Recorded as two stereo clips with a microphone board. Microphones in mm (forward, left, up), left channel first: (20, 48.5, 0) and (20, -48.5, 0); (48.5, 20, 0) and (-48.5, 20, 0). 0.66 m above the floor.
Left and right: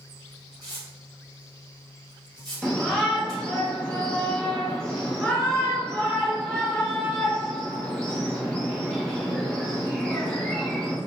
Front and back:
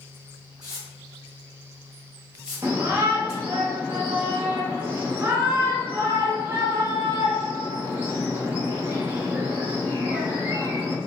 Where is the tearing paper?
45° right, 1.8 m.